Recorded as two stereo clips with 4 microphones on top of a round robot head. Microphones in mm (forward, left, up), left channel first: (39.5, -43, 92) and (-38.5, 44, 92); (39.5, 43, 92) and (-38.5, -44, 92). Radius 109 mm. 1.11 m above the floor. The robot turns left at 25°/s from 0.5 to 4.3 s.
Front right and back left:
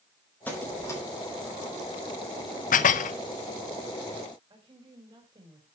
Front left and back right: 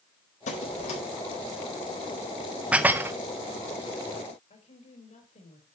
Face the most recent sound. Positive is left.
turn(degrees=80)